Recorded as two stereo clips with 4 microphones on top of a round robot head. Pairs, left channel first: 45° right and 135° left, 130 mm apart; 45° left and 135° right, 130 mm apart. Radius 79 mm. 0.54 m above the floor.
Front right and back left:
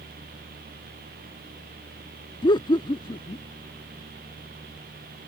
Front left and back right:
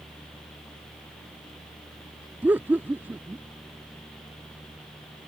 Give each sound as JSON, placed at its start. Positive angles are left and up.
{"t": 2.4, "sound": "laughter", "azimuth_deg": -70}